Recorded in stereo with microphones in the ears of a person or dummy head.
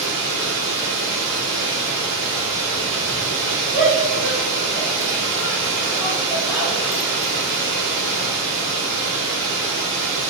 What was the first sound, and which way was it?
Running water, 65° right (ahead or behind).